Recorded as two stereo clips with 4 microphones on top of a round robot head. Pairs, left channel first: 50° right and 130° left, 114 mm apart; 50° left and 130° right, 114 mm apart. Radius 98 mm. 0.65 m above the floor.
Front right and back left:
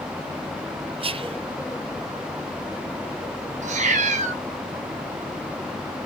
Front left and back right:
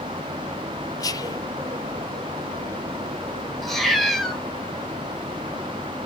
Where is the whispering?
105° left, 1.0 m.